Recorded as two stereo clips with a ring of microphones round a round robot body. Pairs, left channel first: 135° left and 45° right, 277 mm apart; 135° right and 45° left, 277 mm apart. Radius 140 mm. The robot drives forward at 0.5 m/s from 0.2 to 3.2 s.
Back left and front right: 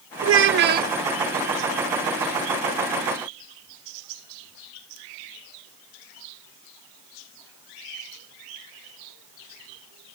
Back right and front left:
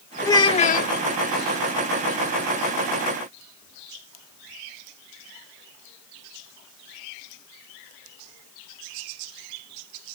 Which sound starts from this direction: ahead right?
A child speaking, at 0.2 s.